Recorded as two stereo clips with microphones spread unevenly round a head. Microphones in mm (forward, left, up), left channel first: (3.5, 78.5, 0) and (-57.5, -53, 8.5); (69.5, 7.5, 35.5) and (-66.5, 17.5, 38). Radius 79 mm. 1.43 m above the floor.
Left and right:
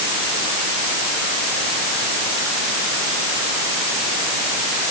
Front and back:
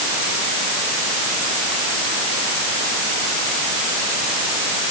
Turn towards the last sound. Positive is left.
No sound to turn to.